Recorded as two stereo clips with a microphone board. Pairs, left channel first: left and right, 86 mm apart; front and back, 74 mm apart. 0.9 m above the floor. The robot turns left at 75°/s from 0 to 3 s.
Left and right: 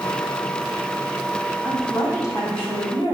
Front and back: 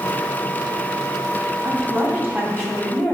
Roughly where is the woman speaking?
Behind.